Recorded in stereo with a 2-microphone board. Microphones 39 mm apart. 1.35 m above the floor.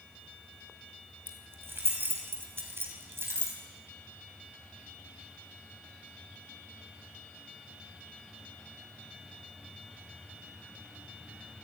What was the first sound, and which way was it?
Keys jangling, 65° right (ahead or behind).